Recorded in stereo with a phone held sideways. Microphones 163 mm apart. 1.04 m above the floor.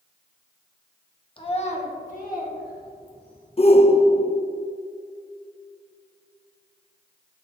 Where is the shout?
40° left (ahead or behind), 0.6 m.